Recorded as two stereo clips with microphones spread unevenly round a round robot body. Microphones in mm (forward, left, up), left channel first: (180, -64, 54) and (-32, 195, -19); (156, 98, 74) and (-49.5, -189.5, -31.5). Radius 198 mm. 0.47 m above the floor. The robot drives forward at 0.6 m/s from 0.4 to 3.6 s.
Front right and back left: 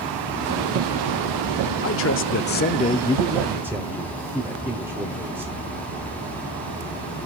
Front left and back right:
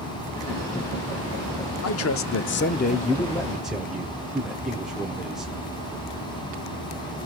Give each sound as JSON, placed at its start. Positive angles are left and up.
{"t": 1.8, "sound": "a man speaking", "azimuth_deg": 0, "distance_m": 1.0}